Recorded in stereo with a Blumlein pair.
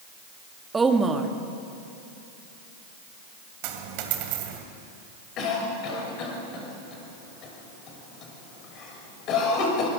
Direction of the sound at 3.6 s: 45° right.